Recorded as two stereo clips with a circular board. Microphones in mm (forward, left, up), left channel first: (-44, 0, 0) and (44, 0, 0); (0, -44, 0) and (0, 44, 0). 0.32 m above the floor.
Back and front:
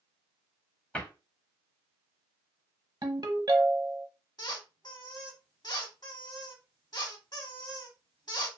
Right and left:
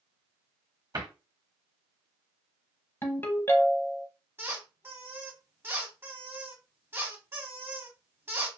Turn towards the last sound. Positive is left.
turn(degrees=150)